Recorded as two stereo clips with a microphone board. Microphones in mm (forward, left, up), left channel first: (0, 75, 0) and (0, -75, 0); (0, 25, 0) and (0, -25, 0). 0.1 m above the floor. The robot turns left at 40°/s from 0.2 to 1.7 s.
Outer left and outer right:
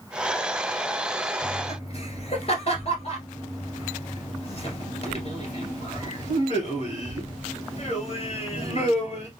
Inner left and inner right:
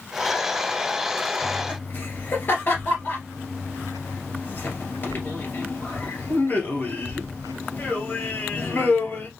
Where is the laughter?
45° left (ahead or behind), 2 m.